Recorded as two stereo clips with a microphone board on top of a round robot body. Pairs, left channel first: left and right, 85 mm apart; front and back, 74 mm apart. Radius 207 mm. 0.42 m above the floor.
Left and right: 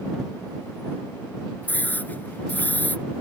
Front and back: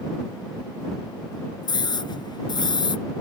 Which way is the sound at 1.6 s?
20° left.